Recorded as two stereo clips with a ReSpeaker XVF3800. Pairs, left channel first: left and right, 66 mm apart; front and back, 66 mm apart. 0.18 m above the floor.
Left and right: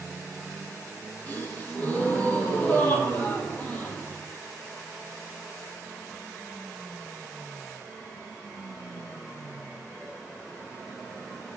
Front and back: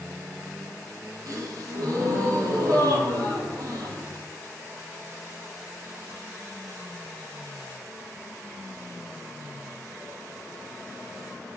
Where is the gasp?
155° left, 0.8 m.